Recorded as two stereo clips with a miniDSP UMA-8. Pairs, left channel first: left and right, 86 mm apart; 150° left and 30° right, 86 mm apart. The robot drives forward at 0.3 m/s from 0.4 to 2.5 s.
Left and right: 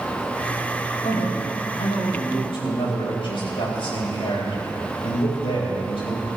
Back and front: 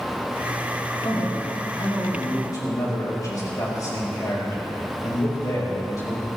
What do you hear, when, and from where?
1.0 s a man speaking: 95° left, 5 m; by 6.3 s 100° left, 5 m